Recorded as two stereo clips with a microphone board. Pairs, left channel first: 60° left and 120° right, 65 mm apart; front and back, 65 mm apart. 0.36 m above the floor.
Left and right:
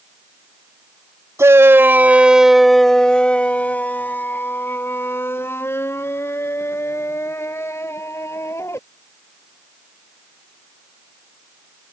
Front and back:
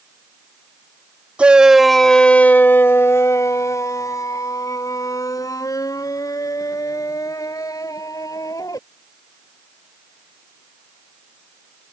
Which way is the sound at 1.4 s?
115° right.